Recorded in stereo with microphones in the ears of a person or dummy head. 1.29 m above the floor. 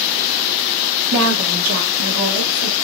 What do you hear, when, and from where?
1.1 s a woman speaking: 80° right, 1.1 m; by 2.8 s 75° right (ahead or behind), 1.8 m